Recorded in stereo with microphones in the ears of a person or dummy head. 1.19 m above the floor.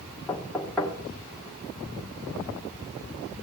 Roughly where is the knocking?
Centre.